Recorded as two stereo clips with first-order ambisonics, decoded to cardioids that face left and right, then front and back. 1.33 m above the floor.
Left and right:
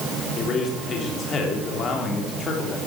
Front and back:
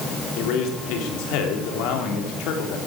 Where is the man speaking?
25° left, 3.5 m.